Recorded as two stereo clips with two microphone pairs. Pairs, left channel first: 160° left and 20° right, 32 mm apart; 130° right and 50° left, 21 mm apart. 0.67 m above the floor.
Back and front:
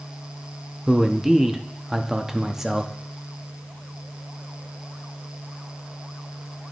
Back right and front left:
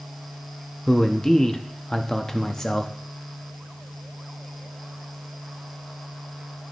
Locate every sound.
0.9 s a man speaking: 90° right, 0.6 m